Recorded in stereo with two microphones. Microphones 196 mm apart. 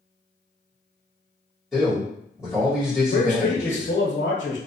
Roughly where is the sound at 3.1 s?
Left.